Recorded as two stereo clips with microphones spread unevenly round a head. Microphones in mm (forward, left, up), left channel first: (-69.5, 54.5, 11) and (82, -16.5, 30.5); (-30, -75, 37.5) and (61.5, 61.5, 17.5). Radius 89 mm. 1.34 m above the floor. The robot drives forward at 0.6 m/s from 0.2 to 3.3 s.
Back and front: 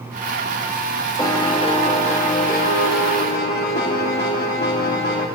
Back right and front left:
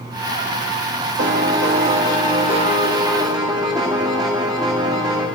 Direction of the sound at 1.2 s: 80° left.